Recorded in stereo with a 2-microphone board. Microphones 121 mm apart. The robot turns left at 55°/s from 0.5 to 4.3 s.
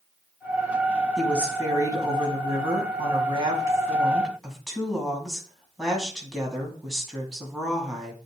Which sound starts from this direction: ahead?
A woman speaking, at 1.2 s.